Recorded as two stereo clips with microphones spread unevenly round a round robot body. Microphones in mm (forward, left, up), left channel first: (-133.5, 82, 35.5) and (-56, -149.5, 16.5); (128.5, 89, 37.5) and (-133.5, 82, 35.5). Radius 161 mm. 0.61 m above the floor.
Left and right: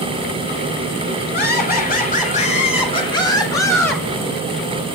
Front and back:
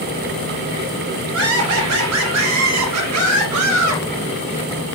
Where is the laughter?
155° left, 3.5 m; by 4.0 s 170° right, 4 m.